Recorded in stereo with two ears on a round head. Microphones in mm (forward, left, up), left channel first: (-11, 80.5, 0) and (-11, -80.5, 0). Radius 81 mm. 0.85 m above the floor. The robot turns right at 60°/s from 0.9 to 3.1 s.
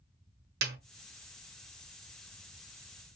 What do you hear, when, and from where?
0.6 s a snare drum: 60° right (ahead or behind), 0.8 m